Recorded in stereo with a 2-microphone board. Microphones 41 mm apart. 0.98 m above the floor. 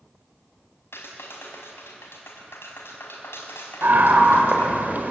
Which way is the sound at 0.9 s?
90° left.